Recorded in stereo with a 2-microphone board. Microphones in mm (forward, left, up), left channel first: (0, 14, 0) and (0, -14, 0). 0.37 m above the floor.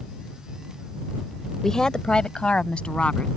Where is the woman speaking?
15° left (ahead or behind); by 3.3 s 45° left (ahead or behind).